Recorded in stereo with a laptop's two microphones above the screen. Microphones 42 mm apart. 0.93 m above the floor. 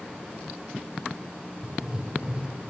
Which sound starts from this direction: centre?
Writing, at 1.6 s.